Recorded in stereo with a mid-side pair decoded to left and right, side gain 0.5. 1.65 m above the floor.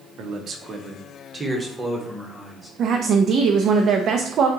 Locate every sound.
0.2 s a man speaking: 65° right, 0.9 m; by 2.7 s 5° right, 1.8 m
2.8 s a woman speaking: 55° right, 0.6 m